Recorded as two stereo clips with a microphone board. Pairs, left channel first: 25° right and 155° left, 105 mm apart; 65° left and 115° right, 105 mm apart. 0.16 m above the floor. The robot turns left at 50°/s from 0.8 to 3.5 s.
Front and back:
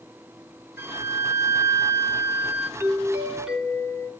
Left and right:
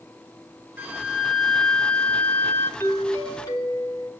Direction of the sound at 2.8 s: 110° left.